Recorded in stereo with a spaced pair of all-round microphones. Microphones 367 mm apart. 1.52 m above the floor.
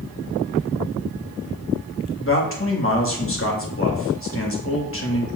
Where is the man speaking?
35° left (ahead or behind), 2.5 m.